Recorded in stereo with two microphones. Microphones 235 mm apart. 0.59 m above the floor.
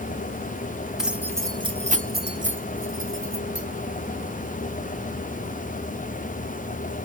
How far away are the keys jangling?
About 1.2 m.